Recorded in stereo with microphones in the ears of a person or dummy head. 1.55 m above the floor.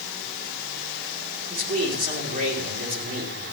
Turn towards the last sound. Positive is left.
turn(degrees=-40)  # may be behind; listen again after turning